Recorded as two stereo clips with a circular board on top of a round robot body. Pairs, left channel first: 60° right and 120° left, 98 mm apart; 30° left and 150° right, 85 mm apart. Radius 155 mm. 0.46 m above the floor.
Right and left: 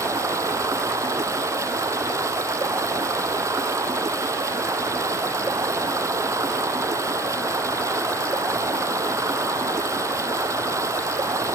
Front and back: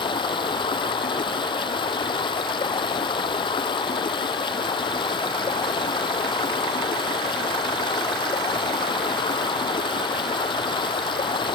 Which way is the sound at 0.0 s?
60° left.